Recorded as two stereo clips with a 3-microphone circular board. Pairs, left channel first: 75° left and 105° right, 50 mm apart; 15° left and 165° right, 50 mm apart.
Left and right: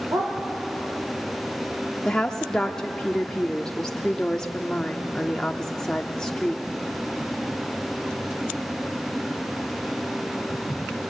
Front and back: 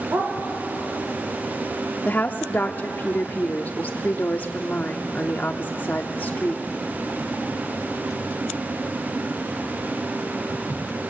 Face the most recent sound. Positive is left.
turn(degrees=10)